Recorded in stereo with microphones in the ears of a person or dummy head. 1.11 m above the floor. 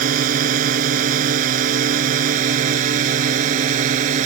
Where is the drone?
55° right (ahead or behind); by 4.2 s 50° right (ahead or behind).